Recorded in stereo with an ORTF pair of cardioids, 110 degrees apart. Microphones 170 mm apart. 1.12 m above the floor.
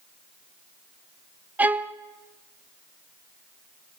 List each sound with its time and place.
1.6 s a violin: 10° right, 0.9 m